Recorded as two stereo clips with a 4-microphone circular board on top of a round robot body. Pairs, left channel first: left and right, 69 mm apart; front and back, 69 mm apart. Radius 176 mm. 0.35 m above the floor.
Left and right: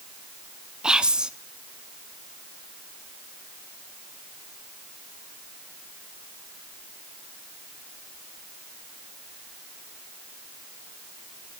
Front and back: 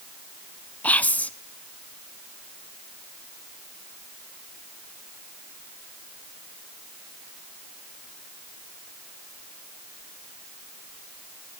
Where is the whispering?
30° right, 0.8 m.